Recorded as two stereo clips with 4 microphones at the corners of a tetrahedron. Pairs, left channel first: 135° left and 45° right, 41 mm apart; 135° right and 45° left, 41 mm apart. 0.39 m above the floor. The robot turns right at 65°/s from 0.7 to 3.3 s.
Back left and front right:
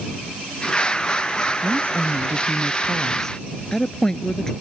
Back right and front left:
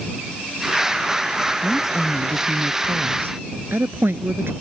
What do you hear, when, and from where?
1.6 s a woman speaking: 50° right; by 4.5 s 60° left